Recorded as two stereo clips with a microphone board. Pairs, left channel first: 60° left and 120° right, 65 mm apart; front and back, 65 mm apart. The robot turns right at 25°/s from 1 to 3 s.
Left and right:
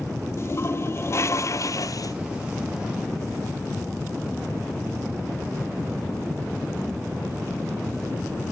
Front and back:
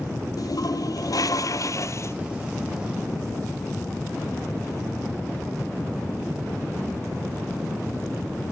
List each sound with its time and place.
0.4 s a toilet flushing: 15° left, 1.1 m; by 2.1 s 40° left, 1.1 m